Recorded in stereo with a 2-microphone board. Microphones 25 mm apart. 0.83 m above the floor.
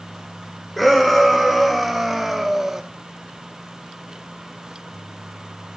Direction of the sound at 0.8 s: 5° left (ahead or behind).